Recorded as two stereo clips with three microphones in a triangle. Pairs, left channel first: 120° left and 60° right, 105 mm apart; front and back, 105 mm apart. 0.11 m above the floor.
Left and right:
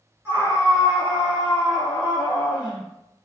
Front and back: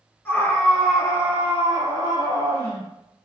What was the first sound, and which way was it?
A scream, 30° right.